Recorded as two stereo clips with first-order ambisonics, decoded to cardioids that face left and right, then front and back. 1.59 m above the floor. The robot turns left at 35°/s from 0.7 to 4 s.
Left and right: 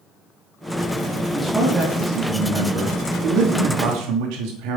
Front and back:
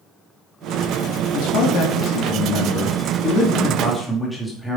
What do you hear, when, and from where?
1.3 s a man speaking: 5° left, 2.5 m; by 4.8 s 85° right, 2.5 m